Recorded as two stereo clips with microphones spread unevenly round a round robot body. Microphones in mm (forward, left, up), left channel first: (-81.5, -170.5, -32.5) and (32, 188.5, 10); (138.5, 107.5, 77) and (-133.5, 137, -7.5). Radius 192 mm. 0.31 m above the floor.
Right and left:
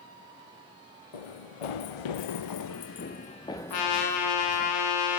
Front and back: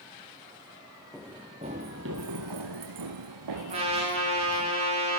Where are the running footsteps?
95° right, 1.6 m; by 4.7 s 150° left, 2.5 m.